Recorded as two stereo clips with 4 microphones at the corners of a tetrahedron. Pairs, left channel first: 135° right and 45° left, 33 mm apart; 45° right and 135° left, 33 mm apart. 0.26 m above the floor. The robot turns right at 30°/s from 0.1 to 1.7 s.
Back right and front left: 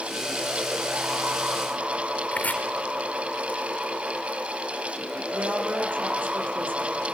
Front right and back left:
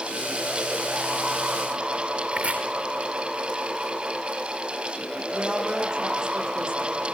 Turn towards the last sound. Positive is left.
turn(degrees=70)